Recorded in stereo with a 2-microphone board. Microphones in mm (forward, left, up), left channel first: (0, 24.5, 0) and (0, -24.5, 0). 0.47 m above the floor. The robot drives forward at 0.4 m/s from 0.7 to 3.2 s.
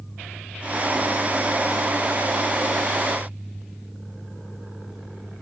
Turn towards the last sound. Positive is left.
No sound to turn to.